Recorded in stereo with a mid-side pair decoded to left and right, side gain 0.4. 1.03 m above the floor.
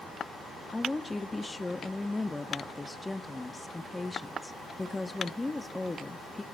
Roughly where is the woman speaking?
Ahead.